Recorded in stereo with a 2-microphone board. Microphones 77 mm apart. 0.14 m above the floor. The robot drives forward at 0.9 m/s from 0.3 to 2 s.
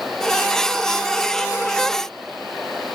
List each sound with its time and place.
Only background noise.